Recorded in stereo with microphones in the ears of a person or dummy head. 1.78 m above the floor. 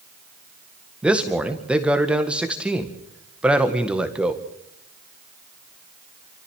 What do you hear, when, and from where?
1.0 s a man speaking: 5° right (ahead or behind), 1.8 m